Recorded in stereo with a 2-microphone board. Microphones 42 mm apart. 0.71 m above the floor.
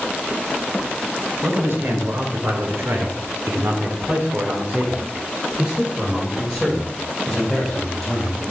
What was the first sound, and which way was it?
A man speaking, 65° right (ahead or behind).